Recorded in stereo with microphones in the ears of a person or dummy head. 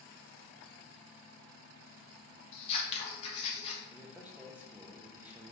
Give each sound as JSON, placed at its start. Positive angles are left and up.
{"t": 2.5, "sound": "scissors", "side_deg": 35, "distance_m": 1.1}
{"t": 3.9, "sound": "a man speaking", "side_deg": -10, "distance_m": 0.6}